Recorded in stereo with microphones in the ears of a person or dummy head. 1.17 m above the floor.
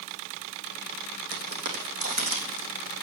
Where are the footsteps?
55° right (ahead or behind), 2.5 m; by 2.7 s 35° right (ahead or behind), 3.5 m.